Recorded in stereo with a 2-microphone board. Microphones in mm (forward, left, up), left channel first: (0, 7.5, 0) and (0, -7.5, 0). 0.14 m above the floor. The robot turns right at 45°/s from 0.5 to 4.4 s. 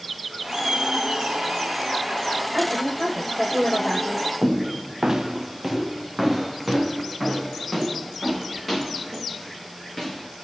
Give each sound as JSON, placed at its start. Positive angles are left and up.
{"t": 0.4, "sound": "laughter", "azimuth_deg": -135, "distance_m": 4.5}
{"t": 2.5, "sound": "a woman speaking", "azimuth_deg": -110, "distance_m": 5.5}
{"t": 4.4, "sound": "footsteps", "side_deg": -60, "distance_m": 1.5}